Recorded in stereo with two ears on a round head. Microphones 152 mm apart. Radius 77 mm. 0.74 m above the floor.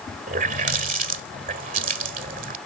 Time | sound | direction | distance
0.3 | a running tap | 50° right (ahead or behind) | ?